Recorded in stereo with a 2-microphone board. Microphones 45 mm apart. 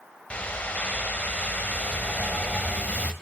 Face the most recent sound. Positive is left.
turn(degrees=30)  # may be behind; listen again after turning